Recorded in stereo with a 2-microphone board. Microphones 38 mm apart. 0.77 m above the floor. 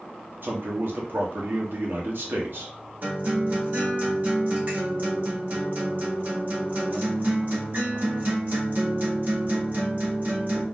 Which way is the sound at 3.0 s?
45° right (ahead or behind).